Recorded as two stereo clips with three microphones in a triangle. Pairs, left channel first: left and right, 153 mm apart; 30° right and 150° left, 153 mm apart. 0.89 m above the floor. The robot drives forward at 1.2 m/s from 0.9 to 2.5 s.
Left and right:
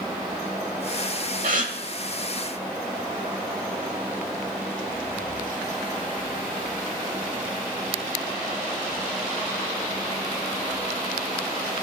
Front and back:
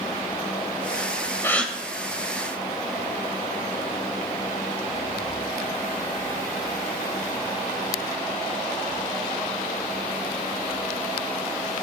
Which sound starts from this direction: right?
A gasp, at 1.4 s.